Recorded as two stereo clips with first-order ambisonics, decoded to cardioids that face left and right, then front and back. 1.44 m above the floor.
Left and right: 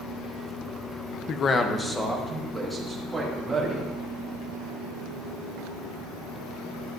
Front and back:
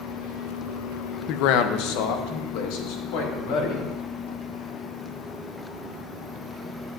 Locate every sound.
1.3 s a man speaking: 35° left, 0.5 m; by 3.9 s 5° right, 2.5 m